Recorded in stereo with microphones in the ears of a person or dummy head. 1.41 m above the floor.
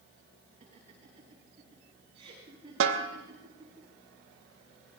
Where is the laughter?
35° right (ahead or behind), 9.5 m; by 3.8 s 15° right (ahead or behind), 8 m.